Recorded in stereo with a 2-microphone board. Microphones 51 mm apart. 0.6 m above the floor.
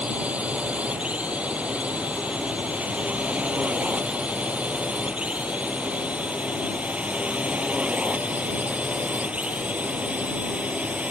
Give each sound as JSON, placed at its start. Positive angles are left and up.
{"t": 0.0, "sound": "a drone", "side_deg": -25}